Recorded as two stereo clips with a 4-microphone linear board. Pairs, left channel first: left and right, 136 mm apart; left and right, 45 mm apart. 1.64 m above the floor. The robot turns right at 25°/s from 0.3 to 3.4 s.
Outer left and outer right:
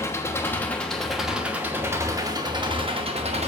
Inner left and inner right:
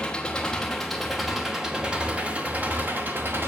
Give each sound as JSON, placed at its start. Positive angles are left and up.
{"t": 0.0, "sound": "an engine running", "azimuth_deg": 160, "distance_m": 1.2}